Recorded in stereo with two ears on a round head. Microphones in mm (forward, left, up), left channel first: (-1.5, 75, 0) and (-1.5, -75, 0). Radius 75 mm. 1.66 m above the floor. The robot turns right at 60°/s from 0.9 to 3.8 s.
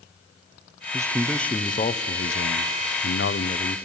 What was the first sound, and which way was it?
A man speaking, 20° right.